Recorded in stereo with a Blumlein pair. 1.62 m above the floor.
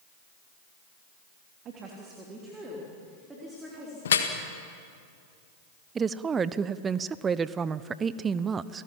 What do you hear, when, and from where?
1.6 s a woman speaking: 30° right, 3 m; by 4.0 s 5° right, 5 m
4.0 s dripping: 65° left, 1.7 m
6.0 s a woman speaking: 20° right, 0.7 m